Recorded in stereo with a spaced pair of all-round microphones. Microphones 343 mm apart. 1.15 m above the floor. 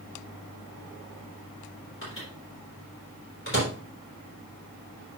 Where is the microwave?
35° left (ahead or behind), 3.5 m.